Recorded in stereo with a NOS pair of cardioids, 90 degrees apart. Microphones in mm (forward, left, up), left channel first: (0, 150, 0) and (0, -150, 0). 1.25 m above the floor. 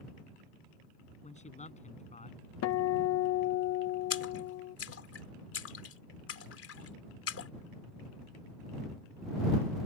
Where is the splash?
50° left.